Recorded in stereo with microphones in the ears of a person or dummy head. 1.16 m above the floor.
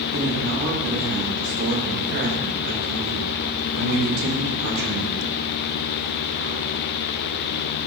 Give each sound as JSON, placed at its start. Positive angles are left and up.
{"t": 0.1, "sound": "a man speaking", "side_deg": -70, "distance_m": 7.5}